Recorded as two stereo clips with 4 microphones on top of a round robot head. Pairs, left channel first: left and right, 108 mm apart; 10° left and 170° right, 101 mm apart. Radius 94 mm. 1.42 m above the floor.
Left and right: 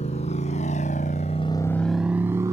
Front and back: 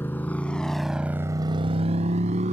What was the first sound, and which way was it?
A motorcycle, 75° left.